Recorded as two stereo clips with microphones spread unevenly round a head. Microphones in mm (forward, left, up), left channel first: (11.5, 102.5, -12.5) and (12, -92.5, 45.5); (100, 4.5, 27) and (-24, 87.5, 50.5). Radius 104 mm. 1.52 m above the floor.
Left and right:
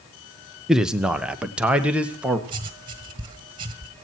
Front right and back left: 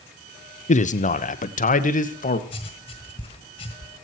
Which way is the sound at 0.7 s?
Straight ahead.